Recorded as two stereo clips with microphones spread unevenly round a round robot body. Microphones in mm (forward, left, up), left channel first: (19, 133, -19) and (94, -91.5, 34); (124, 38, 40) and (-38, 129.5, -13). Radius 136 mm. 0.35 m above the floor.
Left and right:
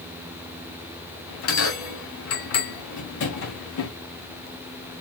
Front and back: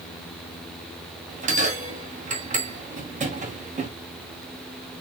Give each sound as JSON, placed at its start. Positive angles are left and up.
{"t": 1.3, "sound": "a bell", "azimuth_deg": 115, "distance_m": 1.9}